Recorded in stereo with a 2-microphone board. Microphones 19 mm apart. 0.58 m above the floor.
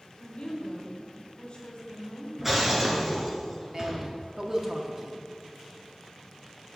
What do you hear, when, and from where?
0.2 s a woman speaking: 60° left (ahead or behind), 1.9 m
2.4 s breaking glass: 15° right (ahead or behind), 1.7 m
3.7 s a man speaking: 25° right (ahead or behind), 0.8 m